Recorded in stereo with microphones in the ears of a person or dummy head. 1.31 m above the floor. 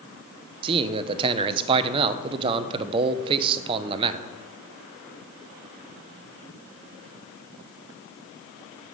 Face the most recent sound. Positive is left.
turn(degrees=-30)  # may be behind; listen again after turning